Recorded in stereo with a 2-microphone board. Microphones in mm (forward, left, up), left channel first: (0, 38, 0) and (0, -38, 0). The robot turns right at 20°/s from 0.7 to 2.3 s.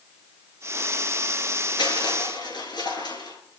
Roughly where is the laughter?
I don't hear laughter.